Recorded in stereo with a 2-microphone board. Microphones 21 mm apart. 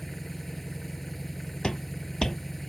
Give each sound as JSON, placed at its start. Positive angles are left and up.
{"t": 0.0, "sound": "an engine running", "side_deg": 10}
{"t": 1.6, "sound": "footsteps", "side_deg": 40}